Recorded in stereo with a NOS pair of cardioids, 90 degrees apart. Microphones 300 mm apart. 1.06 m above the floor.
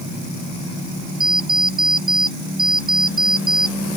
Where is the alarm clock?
45° right.